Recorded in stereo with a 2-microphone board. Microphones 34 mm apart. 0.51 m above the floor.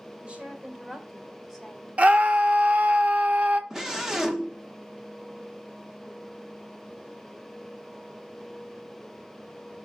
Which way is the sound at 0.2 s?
30° right (ahead or behind).